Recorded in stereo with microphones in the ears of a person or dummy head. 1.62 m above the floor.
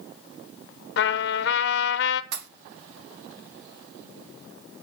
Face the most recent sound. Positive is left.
turn(degrees=-60)  # may be behind; listen again after turning